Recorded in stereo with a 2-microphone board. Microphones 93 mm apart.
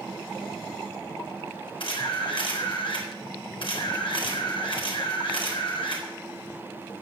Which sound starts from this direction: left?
A camera shutter, at 1.8 s.